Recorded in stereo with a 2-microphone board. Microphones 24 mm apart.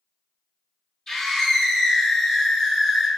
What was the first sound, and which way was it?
A scream, 20° left (ahead or behind).